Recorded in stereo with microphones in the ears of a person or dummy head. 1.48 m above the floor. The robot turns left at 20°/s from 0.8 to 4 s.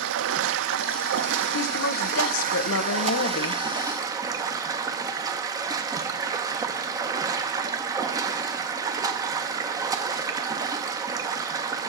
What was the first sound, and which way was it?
Running water, 95° right.